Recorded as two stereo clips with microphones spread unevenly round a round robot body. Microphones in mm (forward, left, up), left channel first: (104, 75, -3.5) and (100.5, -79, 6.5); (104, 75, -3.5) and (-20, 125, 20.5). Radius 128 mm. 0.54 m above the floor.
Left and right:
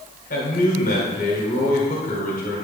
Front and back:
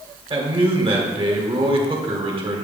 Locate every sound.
0.3 s a man speaking: 110° left, 1.9 m